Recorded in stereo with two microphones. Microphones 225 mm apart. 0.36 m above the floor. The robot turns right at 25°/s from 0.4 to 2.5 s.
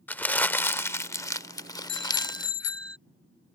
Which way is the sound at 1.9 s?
45° right (ahead or behind).